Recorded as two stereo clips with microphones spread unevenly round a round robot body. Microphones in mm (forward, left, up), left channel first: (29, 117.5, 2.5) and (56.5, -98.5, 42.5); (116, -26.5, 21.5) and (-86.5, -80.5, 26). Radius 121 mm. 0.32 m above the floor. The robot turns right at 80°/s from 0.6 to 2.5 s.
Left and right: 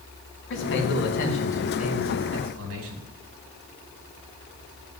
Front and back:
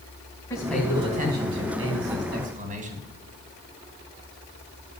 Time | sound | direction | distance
0.5 | a man speaking | 90° left | 3 m